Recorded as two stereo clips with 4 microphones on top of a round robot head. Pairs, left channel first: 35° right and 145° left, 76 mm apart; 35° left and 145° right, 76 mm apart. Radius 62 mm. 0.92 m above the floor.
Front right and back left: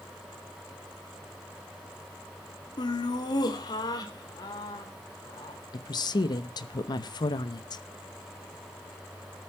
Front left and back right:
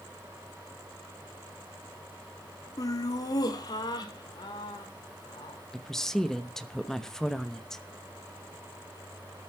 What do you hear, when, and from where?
2.8 s laughter: 5° right, 1.8 m; by 5.6 s 5° left, 3.5 m
5.7 s a woman speaking: 50° right, 1.0 m